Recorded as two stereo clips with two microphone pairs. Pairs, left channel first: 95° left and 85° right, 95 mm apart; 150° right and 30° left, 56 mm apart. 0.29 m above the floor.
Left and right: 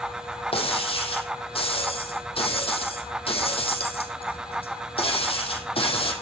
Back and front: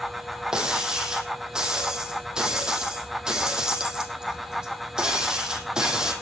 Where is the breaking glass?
110° left, 4.5 m.